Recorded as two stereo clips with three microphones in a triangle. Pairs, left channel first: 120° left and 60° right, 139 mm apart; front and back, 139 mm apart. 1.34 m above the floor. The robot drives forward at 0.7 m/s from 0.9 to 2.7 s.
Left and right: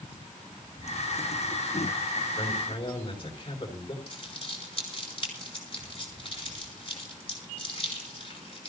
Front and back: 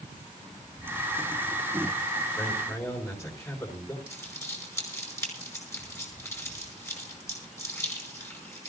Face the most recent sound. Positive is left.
turn(degrees=70)